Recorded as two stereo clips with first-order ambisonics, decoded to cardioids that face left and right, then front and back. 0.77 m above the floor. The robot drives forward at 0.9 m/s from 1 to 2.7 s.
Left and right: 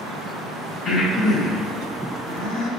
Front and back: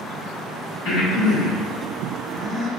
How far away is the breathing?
About 2.0 m.